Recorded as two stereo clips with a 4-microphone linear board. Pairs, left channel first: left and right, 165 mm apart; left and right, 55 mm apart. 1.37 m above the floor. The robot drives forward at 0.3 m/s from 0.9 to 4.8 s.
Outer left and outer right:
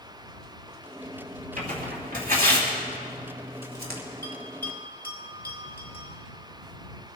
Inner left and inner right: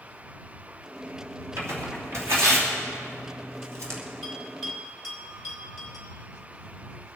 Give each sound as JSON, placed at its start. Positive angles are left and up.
{"t": 1.6, "sound": "tearing paper", "side_deg": -60, "distance_m": 3.0}
{"t": 4.2, "sound": "a bell", "side_deg": 10, "distance_m": 3.5}